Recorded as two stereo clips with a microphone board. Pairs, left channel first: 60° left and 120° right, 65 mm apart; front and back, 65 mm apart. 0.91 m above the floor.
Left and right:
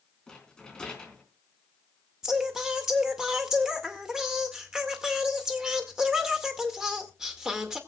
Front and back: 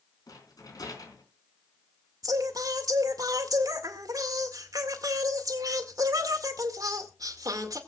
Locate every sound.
0.3 s a rattle: 20° right, 4 m
2.2 s singing: 160° left, 2 m